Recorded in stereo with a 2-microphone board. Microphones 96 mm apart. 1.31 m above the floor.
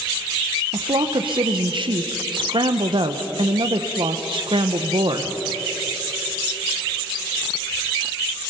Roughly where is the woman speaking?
Right.